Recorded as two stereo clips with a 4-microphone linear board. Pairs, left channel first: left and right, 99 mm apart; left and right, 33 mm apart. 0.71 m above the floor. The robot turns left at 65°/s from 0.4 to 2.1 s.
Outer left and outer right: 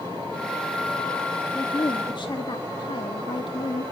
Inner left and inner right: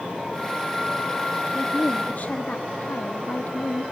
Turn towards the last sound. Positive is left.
turn(degrees=110)